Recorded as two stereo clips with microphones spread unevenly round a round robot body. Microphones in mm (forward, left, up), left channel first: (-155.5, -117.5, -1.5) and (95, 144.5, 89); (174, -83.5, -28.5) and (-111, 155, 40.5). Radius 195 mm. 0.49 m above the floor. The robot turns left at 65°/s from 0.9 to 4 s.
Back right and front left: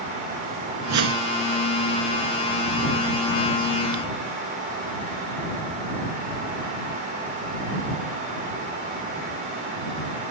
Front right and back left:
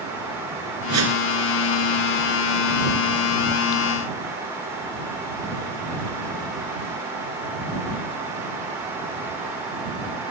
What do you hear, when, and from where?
0.9 s a whoosh: 95° left; by 1.3 s 70° left